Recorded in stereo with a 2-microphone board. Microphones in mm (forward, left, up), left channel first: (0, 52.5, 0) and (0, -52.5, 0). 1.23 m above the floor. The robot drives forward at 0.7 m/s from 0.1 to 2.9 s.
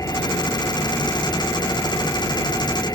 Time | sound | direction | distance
0.0 | an engine running | 30° left (ahead or behind) | ?